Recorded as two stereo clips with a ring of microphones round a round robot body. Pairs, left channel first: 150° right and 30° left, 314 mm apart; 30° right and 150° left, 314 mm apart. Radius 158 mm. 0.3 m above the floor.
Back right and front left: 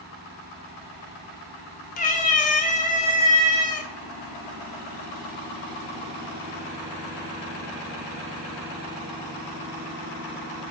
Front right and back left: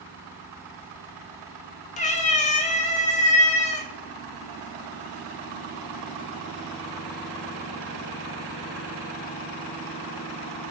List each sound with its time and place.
2.0 s a cat meowing: 90° right, 0.5 m